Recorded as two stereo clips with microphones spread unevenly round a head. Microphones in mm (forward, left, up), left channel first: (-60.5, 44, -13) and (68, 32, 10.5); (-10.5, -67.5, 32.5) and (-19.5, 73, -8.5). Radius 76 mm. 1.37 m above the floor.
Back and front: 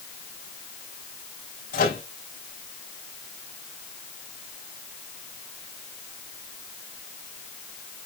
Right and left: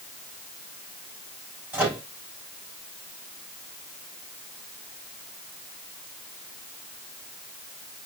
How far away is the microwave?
About 4 m.